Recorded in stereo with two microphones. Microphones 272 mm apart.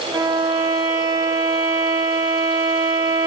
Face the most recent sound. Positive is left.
turn(degrees=-15)  # may be behind; listen again after turning